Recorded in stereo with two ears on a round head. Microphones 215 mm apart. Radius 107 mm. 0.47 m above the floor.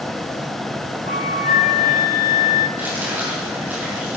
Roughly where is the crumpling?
Centre.